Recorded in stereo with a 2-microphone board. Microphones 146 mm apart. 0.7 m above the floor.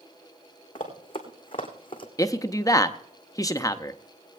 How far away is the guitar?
I don't hear a guitar.